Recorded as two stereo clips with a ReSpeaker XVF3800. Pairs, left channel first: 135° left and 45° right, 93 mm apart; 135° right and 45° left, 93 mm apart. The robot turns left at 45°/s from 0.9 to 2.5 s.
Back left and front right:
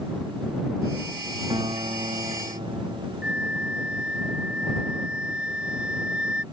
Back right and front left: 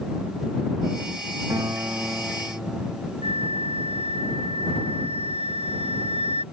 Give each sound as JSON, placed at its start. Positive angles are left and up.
{"t": 1.5, "sound": "a guitar", "azimuth_deg": -5}
{"t": 3.2, "sound": "a flute", "azimuth_deg": 35}